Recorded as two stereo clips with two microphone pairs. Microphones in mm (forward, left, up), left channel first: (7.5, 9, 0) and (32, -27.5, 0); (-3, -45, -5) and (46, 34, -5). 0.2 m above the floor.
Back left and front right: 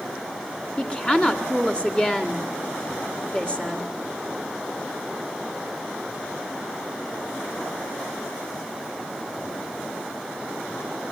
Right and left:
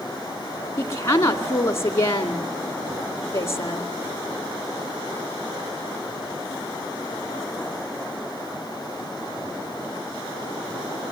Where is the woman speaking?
175° right, 1.8 m.